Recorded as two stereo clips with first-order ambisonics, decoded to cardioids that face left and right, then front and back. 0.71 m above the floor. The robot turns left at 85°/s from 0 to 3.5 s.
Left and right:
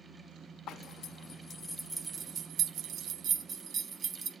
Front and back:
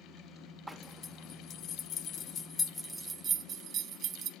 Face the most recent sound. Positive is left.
turn(degrees=-140)